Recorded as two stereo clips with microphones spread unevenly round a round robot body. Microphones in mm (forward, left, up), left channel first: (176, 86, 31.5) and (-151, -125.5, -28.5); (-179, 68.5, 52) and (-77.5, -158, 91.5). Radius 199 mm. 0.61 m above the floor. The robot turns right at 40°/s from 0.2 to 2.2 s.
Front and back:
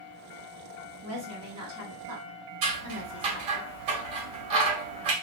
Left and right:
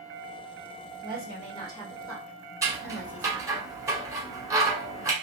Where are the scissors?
145° right, 1.9 m.